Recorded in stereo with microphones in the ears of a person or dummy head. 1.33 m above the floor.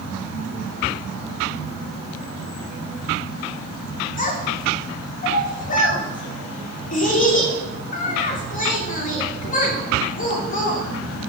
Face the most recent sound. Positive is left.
turn(degrees=45)  # may be behind; listen again after turning